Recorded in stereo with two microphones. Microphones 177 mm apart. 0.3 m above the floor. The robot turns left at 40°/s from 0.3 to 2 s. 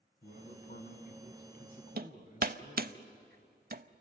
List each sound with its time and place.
0.2 s a man speaking: 120° left, 2.5 m; by 3.0 s 50° left, 2.5 m
2.0 s hammering: 60° right (ahead or behind), 0.6 m